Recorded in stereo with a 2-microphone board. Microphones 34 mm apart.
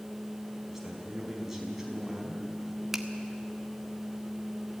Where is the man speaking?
10° right (ahead or behind), 5 m.